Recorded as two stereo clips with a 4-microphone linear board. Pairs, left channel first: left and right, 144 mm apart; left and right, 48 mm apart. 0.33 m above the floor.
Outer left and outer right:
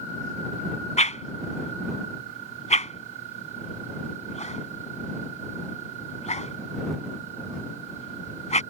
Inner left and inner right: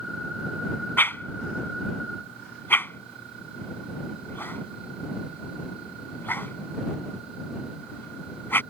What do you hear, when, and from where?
1.0 s a whoosh: 55° left (ahead or behind)